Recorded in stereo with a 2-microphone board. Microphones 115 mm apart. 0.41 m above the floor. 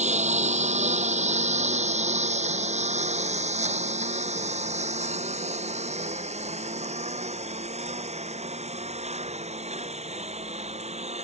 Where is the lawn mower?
90° right; by 11.2 s 70° right (ahead or behind).